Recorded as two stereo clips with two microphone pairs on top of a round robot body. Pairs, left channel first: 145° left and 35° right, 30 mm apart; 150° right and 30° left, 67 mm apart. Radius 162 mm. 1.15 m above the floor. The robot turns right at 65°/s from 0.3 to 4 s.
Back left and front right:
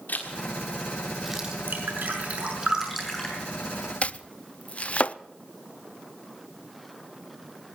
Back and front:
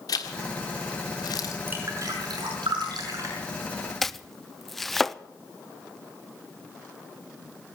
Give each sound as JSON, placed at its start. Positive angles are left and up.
{"t": 0.1, "sound": "a zipper", "azimuth_deg": 175, "distance_m": 1.5}
{"t": 1.7, "sound": "dripping", "azimuth_deg": -30, "distance_m": 5.5}
{"t": 4.0, "sound": "chopping", "azimuth_deg": 140, "distance_m": 0.7}